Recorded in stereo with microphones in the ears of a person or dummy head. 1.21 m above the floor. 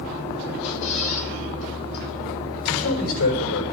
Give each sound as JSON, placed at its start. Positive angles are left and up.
{"t": 0.6, "sound": "a squeak", "side_deg": 80, "distance_m": 3.5}
{"t": 2.6, "sound": "a man speaking", "side_deg": 85, "distance_m": 5.5}